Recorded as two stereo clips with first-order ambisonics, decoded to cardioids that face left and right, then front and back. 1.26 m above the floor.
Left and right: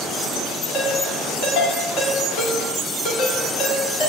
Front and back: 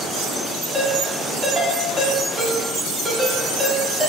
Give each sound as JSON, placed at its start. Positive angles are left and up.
{"t": 0.7, "sound": "a ringtone", "azimuth_deg": 105, "distance_m": 2.0}